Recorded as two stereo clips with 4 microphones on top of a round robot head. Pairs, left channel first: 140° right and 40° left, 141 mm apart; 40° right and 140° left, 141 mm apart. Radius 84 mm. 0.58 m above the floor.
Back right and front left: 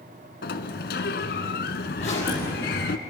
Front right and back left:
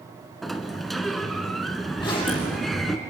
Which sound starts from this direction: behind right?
A sliding door, at 0.4 s.